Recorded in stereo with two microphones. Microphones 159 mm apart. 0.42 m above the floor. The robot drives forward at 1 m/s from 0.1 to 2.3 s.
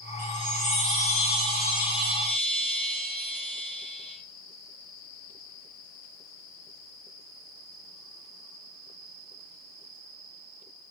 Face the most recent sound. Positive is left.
turn(degrees=35)  # may be behind; listen again after turning